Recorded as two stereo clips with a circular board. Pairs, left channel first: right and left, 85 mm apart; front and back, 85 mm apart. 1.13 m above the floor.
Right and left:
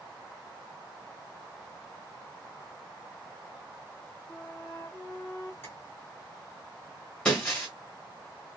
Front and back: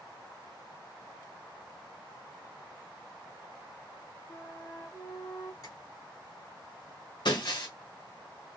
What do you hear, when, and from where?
4.3 s a flute: 25° right, 1.4 m
5.6 s tapping: 35° right, 1.2 m
7.2 s breaking glass: 10° right, 1.3 m